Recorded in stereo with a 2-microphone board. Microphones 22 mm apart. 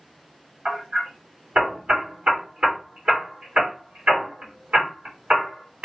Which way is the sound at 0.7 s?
75° right (ahead or behind).